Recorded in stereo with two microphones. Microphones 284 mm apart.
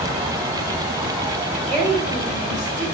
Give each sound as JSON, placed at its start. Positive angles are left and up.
{"t": 1.7, "sound": "a woman speaking", "side_deg": -25, "distance_m": 4.0}